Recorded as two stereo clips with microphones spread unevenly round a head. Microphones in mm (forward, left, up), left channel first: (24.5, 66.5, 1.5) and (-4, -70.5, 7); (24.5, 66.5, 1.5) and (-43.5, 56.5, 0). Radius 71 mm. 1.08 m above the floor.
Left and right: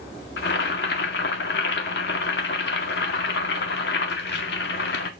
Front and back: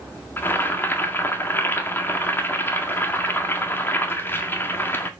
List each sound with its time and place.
0.4 s boiling: 65° left, 1.8 m